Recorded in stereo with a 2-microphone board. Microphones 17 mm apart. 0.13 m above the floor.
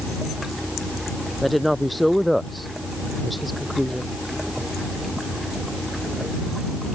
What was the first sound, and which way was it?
A woman speaking, centre (ahead or behind).